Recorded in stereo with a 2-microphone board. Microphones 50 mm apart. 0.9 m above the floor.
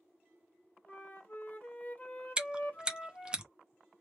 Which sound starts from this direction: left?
A flute, at 0.9 s.